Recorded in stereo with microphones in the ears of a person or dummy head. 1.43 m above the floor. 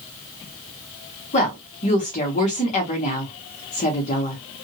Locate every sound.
1.3 s a woman speaking: 35° left (ahead or behind), 1.1 m